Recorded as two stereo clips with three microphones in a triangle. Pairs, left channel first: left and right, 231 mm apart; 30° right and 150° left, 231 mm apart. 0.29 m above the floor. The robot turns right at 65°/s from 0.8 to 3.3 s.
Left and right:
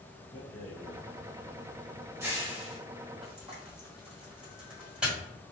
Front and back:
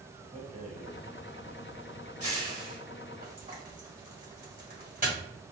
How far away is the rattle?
About 2.0 m.